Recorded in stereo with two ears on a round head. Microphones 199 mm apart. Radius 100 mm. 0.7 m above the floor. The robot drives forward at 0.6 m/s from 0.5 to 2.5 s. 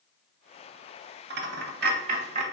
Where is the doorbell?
I don't hear a doorbell.